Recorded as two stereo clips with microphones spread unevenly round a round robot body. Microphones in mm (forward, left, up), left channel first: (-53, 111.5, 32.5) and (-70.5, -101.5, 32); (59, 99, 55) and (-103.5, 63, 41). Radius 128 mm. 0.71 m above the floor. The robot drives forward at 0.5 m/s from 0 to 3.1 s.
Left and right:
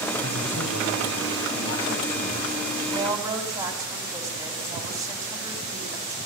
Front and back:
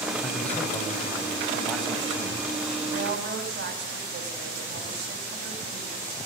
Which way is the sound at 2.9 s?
170° right.